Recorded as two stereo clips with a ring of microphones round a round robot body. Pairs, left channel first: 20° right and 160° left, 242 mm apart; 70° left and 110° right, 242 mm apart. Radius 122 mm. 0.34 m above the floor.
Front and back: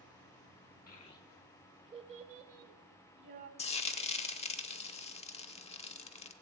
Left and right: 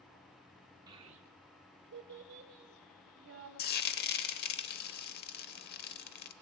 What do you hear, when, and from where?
0.9 s a child speaking: 50° right, 0.6 m; by 3.5 s 160° right, 1.6 m
3.6 s frying: 35° left, 0.7 m